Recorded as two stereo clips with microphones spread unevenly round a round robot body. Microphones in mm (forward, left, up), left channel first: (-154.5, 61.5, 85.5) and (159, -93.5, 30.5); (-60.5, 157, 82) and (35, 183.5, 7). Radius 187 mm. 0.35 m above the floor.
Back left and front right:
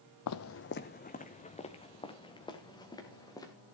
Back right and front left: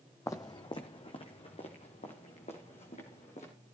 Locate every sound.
0.3 s footsteps: 170° right, 0.7 m; by 3.5 s 125° right, 3.5 m